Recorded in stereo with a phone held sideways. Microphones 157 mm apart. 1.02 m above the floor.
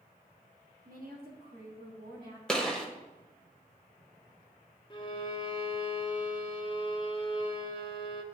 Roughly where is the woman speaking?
Right.